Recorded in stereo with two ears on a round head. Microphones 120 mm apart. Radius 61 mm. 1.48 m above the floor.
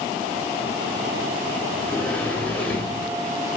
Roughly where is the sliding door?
Centre.